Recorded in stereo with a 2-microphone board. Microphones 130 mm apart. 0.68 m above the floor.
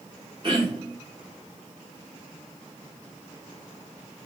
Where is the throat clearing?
40° right (ahead or behind), 1.3 m.